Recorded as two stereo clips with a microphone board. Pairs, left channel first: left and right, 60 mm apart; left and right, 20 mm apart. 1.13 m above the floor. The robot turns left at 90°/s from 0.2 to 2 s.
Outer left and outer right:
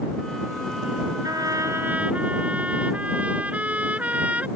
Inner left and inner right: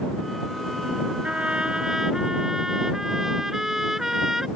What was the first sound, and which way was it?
A trumpet, 90° right.